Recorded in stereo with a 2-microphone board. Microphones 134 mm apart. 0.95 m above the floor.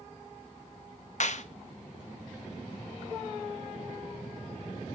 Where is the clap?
60° left (ahead or behind), 0.8 m.